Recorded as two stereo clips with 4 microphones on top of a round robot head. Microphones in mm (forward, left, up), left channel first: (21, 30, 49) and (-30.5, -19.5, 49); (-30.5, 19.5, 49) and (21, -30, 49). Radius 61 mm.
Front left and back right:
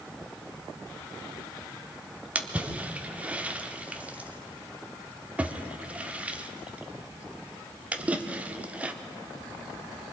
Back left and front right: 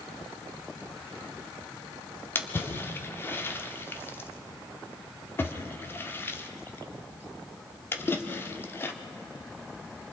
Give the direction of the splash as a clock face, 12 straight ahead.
6 o'clock.